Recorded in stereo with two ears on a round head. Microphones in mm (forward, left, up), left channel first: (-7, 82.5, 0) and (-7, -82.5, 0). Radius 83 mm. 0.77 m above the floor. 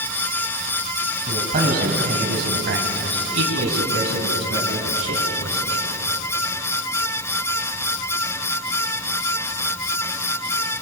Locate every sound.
1.3 s a man speaking: 40° right (ahead or behind), 4.5 m; by 5.8 s 85° right, 7.5 m